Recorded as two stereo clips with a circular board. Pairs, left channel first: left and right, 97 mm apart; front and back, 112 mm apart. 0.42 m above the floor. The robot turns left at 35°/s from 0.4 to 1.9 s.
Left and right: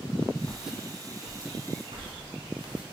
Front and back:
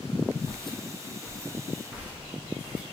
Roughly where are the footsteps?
Ahead.